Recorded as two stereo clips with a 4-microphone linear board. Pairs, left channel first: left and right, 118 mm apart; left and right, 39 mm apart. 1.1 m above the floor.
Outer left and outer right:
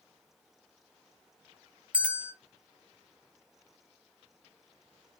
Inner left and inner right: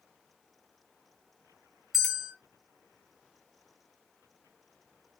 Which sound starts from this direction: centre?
A bell, at 1.9 s.